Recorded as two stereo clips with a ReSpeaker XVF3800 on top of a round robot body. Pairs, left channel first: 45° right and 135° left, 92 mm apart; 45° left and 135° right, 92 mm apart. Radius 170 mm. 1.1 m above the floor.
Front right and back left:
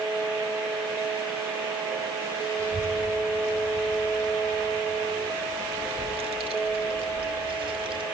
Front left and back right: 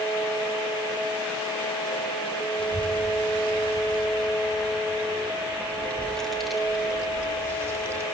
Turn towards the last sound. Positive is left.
turn(degrees=160)